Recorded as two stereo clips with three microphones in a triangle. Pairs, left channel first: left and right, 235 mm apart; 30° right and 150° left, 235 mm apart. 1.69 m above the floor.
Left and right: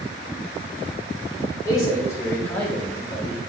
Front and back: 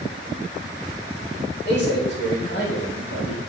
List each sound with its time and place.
1.6 s a man speaking: 15° left, 3.5 m; by 3.4 s 5° right, 2 m